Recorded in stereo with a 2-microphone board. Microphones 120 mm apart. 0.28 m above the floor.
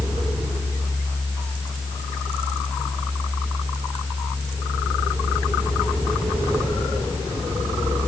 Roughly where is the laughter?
No laughter in this recording.